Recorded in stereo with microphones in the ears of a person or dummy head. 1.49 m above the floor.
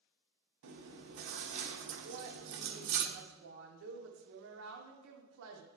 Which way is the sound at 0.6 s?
60° right (ahead or behind).